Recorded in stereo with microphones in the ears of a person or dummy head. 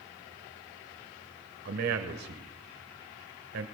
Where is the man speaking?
60° right (ahead or behind), 1.2 m.